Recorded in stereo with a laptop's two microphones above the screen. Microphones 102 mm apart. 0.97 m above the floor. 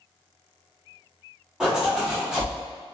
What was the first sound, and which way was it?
A zipper, 5° right (ahead or behind).